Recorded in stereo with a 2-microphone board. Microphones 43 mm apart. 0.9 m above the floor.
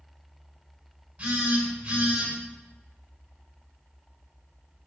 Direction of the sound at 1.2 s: 35° right (ahead or behind).